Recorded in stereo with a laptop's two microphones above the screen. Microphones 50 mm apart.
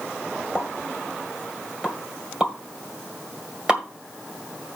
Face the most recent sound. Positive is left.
turn(degrees=-15)  # may be behind; listen again after turning